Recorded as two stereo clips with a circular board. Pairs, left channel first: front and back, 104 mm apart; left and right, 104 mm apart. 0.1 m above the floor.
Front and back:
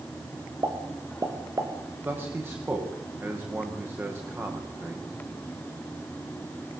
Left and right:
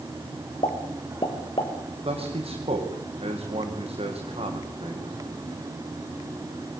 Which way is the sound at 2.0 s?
110° right.